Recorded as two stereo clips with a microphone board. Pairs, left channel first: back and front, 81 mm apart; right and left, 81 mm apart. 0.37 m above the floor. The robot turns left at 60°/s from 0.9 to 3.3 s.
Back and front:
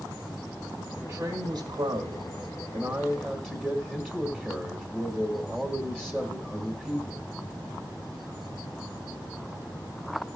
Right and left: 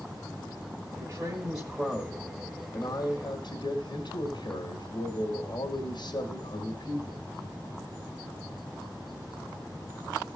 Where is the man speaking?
65° left, 2.0 m; by 7.2 s 75° right, 2.0 m.